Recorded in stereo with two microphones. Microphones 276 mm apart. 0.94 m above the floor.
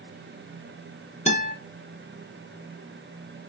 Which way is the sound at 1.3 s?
25° left (ahead or behind).